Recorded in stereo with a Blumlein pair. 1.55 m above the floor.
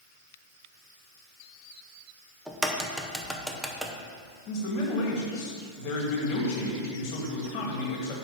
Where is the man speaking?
35° left, 2 m.